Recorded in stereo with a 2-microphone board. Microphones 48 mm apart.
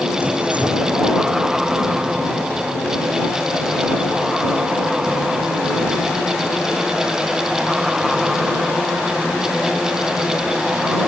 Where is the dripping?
30° right (ahead or behind).